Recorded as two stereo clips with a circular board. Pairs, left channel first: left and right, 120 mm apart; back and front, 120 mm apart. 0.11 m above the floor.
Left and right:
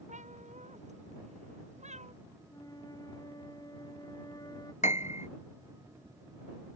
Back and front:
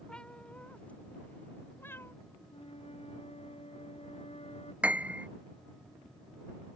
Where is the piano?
80° left.